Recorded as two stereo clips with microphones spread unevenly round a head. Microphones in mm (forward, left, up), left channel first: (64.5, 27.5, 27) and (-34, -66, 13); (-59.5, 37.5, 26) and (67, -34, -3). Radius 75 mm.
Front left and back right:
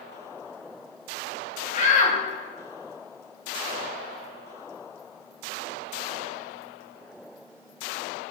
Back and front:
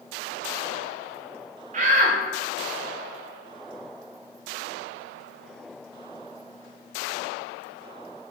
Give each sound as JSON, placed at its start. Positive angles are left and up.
{"t": 1.7, "sound": "a shout", "azimuth_deg": 10, "distance_m": 1.7}